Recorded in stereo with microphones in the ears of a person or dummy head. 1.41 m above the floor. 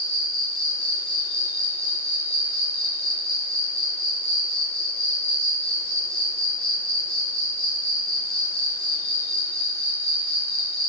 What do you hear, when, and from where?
0.0 s an insect: centre (ahead or behind), 4.5 m